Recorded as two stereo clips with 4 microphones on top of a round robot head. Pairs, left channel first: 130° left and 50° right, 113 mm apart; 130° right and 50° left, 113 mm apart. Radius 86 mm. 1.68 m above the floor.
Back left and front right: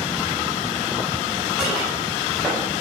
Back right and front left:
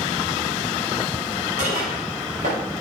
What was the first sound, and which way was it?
Dishes clattering, 30° left.